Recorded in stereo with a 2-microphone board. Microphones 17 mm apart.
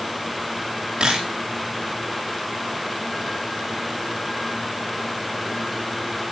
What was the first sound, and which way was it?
A camera shutter, 60° right (ahead or behind).